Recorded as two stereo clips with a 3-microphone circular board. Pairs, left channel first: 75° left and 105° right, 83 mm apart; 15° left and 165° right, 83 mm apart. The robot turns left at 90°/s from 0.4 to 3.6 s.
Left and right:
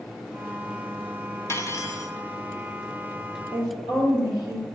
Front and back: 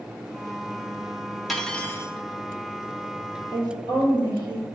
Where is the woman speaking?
125° right, 3 m; by 4.7 s 135° right, 3 m.